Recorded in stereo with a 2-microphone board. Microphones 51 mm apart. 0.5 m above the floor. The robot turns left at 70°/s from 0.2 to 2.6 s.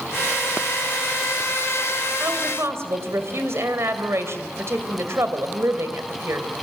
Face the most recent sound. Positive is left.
turn(degrees=-60)  # may be behind; listen again after turning